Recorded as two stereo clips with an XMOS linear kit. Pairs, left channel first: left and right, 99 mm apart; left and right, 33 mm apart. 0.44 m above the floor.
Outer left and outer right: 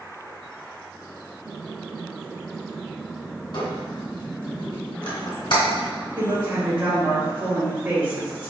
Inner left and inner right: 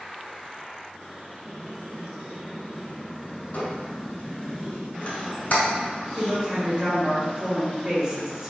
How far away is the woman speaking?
About 1.6 m.